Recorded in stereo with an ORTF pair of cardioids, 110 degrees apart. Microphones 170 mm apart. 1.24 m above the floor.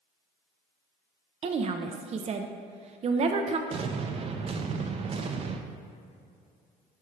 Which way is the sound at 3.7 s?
35° right.